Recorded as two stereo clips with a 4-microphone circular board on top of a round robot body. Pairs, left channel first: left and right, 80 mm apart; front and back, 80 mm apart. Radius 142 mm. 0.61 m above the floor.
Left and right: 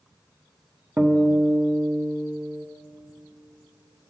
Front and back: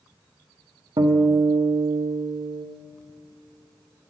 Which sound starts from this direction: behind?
A guitar, at 1.0 s.